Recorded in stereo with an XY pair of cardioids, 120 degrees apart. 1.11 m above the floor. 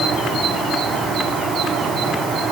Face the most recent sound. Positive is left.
No sound to turn to.